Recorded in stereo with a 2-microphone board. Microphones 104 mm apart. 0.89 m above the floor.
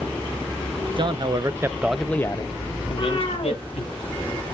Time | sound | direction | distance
1.0 | a man speaking | 50° right (ahead or behind) | 0.9 m
2.9 | a cat meowing | 45° left (ahead or behind) | 2.5 m